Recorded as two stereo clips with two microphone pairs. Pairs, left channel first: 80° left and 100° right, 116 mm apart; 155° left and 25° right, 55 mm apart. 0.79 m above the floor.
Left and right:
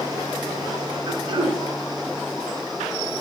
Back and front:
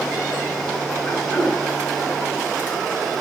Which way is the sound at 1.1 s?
155° right.